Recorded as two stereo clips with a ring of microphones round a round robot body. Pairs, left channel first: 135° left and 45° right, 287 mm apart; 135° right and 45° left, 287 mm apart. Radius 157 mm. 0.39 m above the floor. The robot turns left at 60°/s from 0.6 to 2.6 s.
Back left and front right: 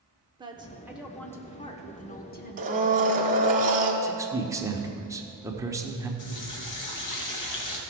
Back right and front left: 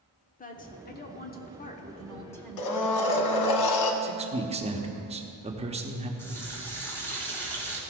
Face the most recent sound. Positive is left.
turn(degrees=145)